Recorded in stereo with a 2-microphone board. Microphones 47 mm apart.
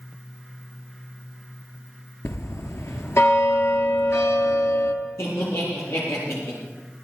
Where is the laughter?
75° left (ahead or behind), 7.5 m.